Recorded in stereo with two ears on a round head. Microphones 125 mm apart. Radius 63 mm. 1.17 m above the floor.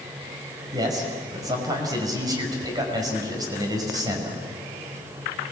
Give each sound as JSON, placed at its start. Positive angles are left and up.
{"t": 0.7, "sound": "a man speaking", "side_deg": -30, "distance_m": 5.5}